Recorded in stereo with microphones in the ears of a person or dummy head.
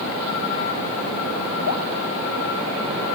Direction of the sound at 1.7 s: 75° left (ahead or behind).